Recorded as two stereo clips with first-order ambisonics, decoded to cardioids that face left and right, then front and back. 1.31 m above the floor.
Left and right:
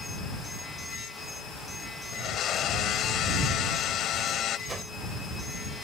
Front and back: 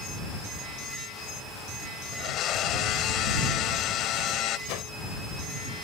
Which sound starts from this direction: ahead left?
A blender, at 2.1 s.